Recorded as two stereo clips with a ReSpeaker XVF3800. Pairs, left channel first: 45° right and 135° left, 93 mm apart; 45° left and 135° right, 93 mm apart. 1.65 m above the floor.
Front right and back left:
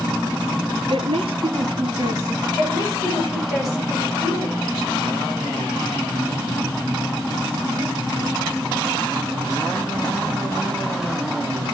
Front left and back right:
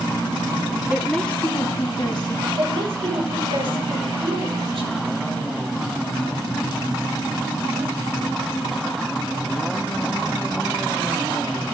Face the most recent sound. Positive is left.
turn(degrees=-140)